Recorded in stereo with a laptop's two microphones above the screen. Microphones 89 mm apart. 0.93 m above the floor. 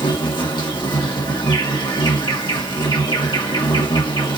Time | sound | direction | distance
0.0 | an insect | 60° left (ahead or behind) | 1.4 m